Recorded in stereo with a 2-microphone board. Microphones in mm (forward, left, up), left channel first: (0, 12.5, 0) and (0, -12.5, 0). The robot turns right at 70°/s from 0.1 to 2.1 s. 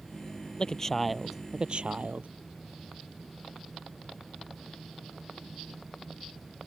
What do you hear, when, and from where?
0.6 s a man speaking: 140° left; by 2.3 s 110° right